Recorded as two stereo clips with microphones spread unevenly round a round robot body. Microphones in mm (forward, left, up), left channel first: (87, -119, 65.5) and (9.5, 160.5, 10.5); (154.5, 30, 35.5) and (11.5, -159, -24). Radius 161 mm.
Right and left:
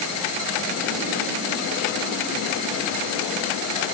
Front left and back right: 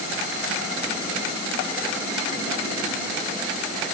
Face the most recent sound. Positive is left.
No sound to turn to.